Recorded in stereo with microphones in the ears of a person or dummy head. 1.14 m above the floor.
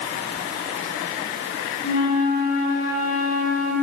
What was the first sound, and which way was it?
A flute, 50° left (ahead or behind).